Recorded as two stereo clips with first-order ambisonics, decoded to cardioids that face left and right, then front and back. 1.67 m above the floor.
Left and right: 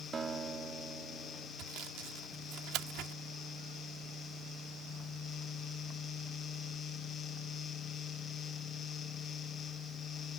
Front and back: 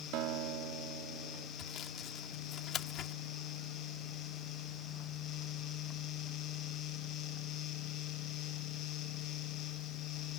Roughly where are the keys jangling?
I don't hear keys jangling.